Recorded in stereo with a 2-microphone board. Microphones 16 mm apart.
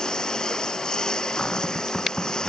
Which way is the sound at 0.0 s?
50° left (ahead or behind).